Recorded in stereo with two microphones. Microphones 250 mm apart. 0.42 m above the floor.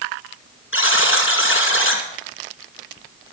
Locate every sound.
0.7 s a buzzer: 55° left (ahead or behind), 2 m